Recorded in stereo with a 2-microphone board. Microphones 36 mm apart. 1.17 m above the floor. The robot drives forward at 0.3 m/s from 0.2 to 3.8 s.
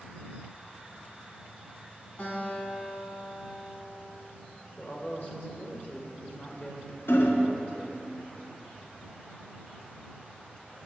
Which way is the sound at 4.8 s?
40° left (ahead or behind).